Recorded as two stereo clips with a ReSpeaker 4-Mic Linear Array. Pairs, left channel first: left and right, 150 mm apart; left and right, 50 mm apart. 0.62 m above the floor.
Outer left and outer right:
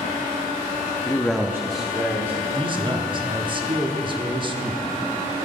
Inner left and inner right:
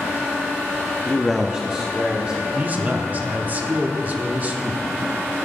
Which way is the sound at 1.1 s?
20° left (ahead or behind).